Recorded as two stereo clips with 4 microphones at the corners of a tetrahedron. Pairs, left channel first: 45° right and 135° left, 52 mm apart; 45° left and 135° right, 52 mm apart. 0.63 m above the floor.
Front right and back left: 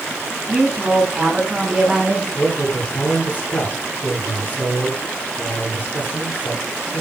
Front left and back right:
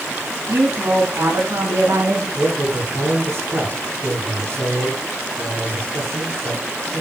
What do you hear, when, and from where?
0.5 s a woman speaking: 155° right, 7 m; by 2.2 s 140° right, 8 m
2.4 s a man speaking: 95° right, 8.5 m